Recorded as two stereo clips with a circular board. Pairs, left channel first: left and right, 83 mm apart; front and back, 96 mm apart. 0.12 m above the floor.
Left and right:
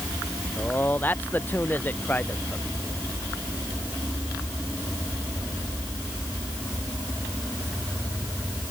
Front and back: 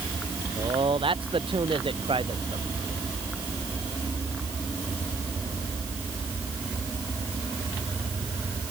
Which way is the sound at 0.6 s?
160° left.